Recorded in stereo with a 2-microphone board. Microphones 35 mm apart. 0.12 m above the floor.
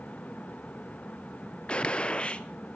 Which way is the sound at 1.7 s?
30° left (ahead or behind).